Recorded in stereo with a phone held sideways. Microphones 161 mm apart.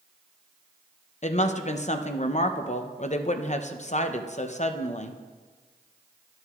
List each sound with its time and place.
1.2 s a woman speaking: 45° left (ahead or behind), 0.6 m